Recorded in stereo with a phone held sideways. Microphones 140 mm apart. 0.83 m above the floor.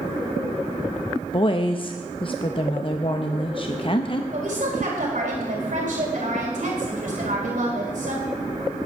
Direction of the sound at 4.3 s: 65° right (ahead or behind).